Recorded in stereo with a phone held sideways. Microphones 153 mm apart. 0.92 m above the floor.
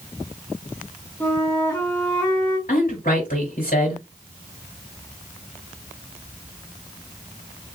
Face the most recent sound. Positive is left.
turn(degrees=75)  # may be behind; listen again after turning